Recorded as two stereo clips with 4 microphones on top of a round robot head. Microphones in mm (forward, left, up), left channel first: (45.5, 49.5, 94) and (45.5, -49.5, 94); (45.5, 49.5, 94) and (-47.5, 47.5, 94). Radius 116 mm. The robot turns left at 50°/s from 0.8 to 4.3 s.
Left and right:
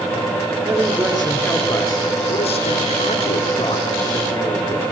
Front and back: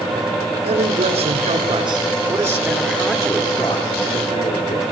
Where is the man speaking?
165° right, 6 m; by 4.8 s 20° left, 6 m.